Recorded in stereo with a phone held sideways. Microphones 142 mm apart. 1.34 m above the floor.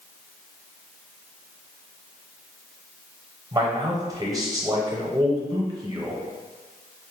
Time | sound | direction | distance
3.5 | a man speaking | 25° right (ahead or behind) | 0.9 m